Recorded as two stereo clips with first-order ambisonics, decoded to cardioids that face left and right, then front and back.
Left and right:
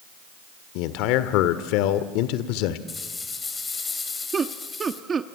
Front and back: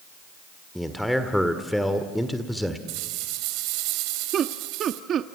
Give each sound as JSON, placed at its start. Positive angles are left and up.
{"t": 0.8, "sound": "a man speaking", "azimuth_deg": 90, "distance_m": 1.5}
{"t": 2.9, "sound": "a rattle", "azimuth_deg": 165, "distance_m": 3.0}
{"t": 4.3, "sound": "laughter", "azimuth_deg": -145, "distance_m": 0.8}